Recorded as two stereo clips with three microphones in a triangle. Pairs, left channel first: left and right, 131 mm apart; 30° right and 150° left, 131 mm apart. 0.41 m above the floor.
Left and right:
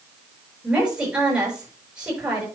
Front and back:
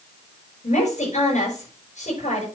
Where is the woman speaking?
10° right, 7 m.